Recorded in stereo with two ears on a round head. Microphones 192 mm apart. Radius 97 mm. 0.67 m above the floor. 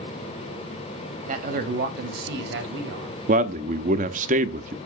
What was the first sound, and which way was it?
A man speaking, 35° right (ahead or behind).